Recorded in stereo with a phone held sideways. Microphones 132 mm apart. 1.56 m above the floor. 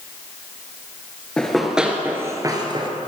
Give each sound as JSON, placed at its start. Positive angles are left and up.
{"t": 1.4, "sound": "running footsteps", "side_deg": 5, "distance_m": 1.9}